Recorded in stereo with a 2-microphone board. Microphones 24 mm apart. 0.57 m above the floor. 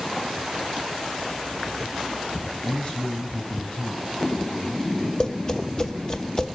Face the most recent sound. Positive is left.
turn(degrees=30)  # may be behind; listen again after turning